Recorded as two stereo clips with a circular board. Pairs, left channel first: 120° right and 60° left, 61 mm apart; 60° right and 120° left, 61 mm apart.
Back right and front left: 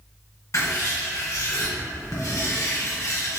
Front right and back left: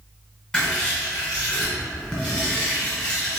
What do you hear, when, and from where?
0.5 s writing: 130° right, 1.8 m